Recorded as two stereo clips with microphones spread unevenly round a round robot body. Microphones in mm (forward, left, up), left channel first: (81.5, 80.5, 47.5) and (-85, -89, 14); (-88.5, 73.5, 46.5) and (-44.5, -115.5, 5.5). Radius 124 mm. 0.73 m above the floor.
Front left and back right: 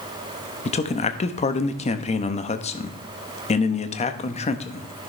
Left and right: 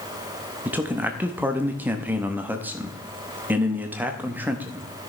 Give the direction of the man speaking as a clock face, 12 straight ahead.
12 o'clock.